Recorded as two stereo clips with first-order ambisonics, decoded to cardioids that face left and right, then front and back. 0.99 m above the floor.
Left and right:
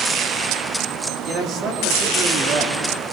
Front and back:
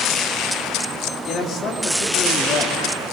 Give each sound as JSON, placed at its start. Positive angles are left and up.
{"t": 1.3, "sound": "a man speaking", "azimuth_deg": -45, "distance_m": 2.0}